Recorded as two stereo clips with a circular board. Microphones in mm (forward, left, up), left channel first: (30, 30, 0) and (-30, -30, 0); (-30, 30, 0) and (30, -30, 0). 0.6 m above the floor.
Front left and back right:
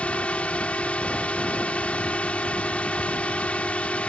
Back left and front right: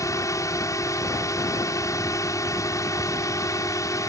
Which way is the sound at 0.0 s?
115° left.